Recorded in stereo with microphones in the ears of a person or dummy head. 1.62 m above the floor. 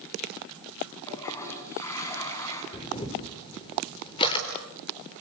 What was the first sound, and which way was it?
A toilet flushing, 15° left (ahead or behind).